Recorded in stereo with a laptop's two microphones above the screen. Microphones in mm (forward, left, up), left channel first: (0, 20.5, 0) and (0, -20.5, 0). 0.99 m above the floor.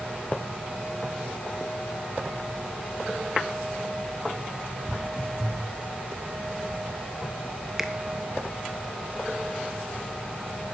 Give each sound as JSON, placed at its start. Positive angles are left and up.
{"t": 4.9, "sound": "footsteps", "side_deg": 20, "distance_m": 1.2}
{"t": 7.8, "sound": "a finger snap", "side_deg": -10, "distance_m": 0.9}